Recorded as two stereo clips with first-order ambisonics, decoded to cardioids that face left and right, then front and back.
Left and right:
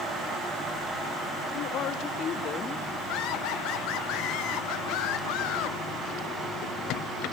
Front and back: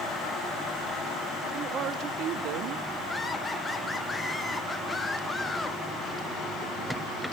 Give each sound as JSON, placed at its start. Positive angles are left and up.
{"t": 1.5, "sound": "a woman speaking", "azimuth_deg": 125, "distance_m": 1.5}
{"t": 3.1, "sound": "laughter", "azimuth_deg": 80, "distance_m": 0.7}